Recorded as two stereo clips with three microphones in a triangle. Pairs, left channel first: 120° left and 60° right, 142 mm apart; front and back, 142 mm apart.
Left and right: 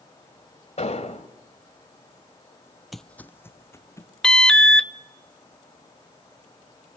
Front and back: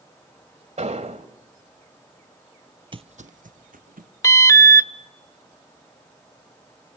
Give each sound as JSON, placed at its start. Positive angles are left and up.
{"t": 0.8, "sound": "an explosion", "azimuth_deg": 150, "distance_m": 1.9}
{"t": 2.9, "sound": "footsteps", "azimuth_deg": -150, "distance_m": 0.5}
{"t": 4.2, "sound": "an alarm", "azimuth_deg": 40, "distance_m": 0.8}